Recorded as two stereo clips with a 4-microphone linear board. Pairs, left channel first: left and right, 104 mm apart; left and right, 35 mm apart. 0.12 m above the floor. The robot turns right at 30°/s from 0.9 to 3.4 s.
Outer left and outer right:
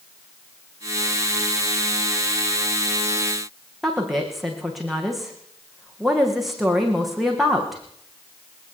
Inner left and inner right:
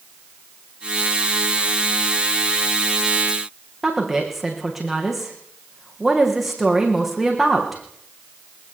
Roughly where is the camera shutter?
No camera shutter in this recording.